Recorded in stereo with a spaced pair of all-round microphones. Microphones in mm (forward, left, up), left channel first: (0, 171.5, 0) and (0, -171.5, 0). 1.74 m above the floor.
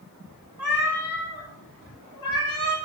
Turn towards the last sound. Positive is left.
turn(degrees=70)  # may be behind; listen again after turning